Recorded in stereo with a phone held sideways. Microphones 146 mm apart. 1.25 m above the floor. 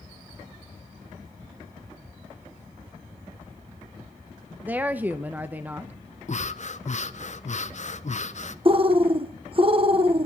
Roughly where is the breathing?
Left.